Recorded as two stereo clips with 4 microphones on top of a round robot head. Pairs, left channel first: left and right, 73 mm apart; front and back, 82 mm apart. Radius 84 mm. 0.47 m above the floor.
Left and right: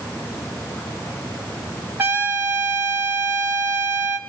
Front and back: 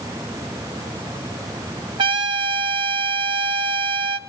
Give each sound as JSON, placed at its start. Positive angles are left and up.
{"t": 2.0, "sound": "a trumpet", "azimuth_deg": -155, "distance_m": 0.7}